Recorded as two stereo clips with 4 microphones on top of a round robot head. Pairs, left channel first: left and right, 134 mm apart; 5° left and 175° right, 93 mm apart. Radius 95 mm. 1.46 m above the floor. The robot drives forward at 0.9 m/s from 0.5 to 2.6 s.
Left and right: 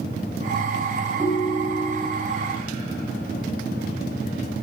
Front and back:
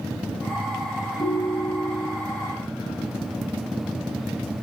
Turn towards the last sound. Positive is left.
turn(degrees=-35)